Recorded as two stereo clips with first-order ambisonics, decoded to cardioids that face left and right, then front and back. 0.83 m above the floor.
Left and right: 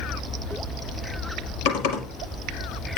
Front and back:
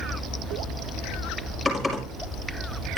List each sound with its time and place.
1.6 s typing on a keyboard: 80° left, 4.5 m